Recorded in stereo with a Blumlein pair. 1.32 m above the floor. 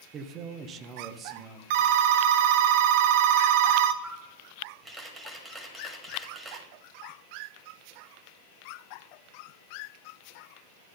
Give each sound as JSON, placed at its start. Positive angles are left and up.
{"t": 0.1, "sound": "a man speaking", "azimuth_deg": -30, "distance_m": 0.8}
{"t": 1.7, "sound": "a phone ringing", "azimuth_deg": -50, "distance_m": 0.5}
{"t": 4.0, "sound": "a camera shutter", "azimuth_deg": -15, "distance_m": 1.9}